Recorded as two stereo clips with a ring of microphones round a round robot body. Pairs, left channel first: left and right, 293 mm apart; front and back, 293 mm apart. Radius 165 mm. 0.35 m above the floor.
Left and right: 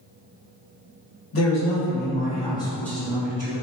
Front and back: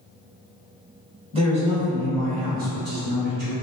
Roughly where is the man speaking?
Behind left.